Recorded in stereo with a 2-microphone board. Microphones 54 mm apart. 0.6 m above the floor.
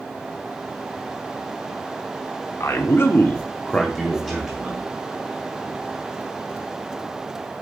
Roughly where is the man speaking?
Left.